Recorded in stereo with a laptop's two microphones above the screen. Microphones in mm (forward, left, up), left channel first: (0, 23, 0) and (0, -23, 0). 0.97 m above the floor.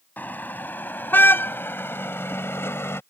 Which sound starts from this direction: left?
A car horn, at 0.2 s.